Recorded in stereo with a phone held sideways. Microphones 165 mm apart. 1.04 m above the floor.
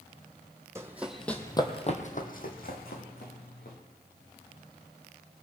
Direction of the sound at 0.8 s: 15° right (ahead or behind).